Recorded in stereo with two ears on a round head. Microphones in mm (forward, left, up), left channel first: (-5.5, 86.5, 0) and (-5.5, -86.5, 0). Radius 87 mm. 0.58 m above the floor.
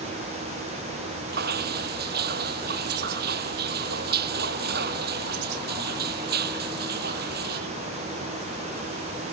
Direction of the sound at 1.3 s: 55° right (ahead or behind).